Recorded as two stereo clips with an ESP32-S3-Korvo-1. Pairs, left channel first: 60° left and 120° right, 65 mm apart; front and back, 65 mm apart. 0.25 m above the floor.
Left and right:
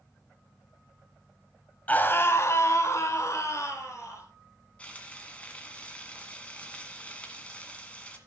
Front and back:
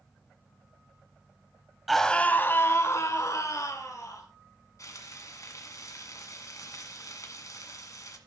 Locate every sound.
1.9 s a scream: 90° left, 1.1 m; by 4.3 s 20° left, 4 m
4.8 s frying: 5° right, 1.8 m